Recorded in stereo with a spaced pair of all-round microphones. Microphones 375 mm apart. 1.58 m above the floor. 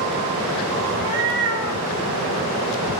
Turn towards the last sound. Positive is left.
turn(degrees=65)  # may be behind; listen again after turning